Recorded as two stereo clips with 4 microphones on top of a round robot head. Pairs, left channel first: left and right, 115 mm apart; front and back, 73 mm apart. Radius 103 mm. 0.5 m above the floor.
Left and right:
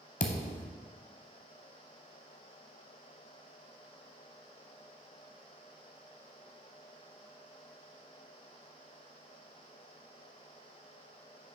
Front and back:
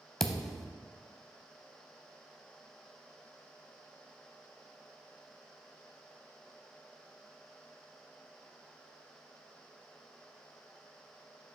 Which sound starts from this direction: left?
A thud, at 0.2 s.